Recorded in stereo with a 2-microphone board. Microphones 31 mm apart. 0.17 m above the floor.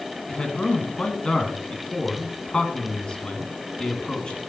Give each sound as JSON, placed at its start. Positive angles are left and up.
{"t": 0.3, "sound": "a man speaking", "side_deg": 30, "distance_m": 1.7}